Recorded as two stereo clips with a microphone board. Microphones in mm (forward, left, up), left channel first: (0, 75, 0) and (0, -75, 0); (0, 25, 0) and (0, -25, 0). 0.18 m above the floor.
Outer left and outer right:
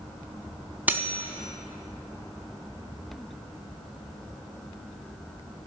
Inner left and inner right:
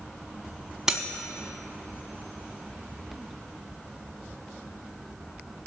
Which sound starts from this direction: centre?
Cutlery clinking, at 0.9 s.